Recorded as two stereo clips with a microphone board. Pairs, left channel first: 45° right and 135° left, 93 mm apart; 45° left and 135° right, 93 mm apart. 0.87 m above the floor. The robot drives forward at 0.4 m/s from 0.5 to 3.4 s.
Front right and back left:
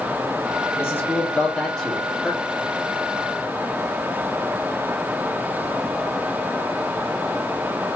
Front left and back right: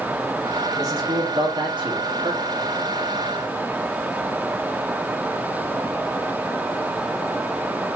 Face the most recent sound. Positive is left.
turn(degrees=-145)